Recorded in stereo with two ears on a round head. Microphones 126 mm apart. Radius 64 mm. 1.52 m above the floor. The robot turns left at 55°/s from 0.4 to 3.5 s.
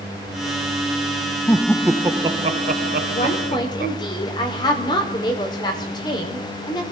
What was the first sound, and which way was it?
Laughter, 15° left.